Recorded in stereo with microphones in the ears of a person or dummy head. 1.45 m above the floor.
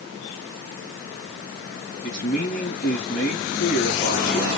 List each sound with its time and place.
2.0 s a man speaking: 45° left (ahead or behind), 1.5 m